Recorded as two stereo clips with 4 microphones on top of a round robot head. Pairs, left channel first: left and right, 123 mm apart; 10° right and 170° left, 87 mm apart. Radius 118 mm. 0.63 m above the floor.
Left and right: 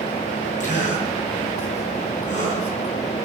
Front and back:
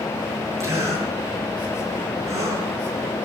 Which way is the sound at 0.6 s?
115° left.